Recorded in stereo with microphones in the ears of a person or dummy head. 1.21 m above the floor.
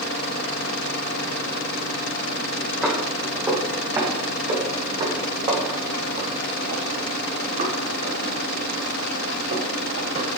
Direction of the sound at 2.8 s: 5° right (ahead or behind).